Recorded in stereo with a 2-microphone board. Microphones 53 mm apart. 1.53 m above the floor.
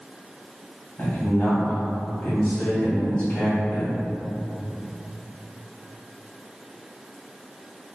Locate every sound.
1.0 s a man speaking: 25° left (ahead or behind), 1.6 m